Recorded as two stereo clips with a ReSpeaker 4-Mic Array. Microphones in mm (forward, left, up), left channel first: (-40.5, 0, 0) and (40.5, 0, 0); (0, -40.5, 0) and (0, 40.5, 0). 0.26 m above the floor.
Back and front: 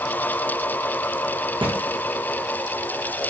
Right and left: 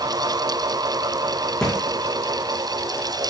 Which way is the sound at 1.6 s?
10° right.